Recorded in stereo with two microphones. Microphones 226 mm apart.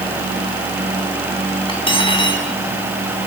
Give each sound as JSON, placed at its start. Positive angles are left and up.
{"t": 1.7, "sound": "cutlery clinking", "side_deg": 25, "distance_m": 4.0}